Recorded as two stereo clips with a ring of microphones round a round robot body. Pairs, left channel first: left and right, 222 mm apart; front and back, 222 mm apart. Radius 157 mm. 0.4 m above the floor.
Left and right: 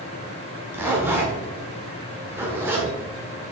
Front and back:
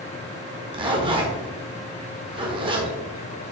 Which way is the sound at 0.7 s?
155° right.